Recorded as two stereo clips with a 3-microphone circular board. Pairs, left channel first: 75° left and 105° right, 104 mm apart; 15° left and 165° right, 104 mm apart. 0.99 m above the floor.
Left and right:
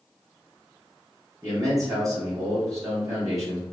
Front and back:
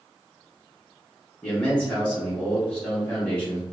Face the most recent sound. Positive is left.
turn(degrees=-60)